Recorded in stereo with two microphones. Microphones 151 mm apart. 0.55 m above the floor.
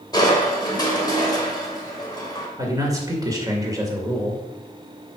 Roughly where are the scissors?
No scissors in this recording.